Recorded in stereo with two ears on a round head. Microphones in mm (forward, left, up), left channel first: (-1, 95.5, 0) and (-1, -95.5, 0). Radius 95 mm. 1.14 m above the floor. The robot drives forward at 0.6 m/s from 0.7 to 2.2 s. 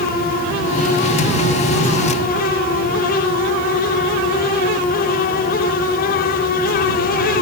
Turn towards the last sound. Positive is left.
No sound to turn to.